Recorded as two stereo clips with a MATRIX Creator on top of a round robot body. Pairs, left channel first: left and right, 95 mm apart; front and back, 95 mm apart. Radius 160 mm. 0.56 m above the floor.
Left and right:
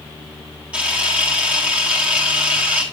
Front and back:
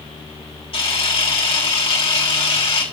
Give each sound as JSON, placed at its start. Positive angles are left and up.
{"t": 0.7, "sound": "a camera shutter", "azimuth_deg": -15, "distance_m": 3.5}